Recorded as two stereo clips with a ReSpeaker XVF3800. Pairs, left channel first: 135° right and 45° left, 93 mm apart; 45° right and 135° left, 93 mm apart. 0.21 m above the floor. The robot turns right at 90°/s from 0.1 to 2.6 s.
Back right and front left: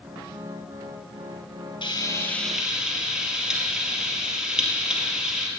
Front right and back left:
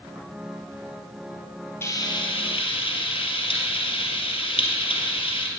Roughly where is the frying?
Right.